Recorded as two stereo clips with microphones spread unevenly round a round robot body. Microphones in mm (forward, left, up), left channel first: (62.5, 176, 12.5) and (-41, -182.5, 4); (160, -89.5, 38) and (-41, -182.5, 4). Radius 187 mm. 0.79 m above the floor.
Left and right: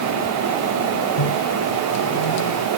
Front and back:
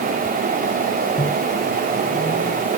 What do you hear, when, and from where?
1.2 s a microwave: 95° left